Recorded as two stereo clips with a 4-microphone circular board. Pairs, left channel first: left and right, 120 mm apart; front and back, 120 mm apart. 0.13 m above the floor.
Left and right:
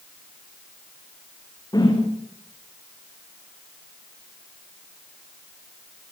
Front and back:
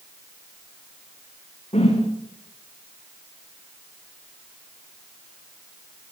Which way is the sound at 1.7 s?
30° left.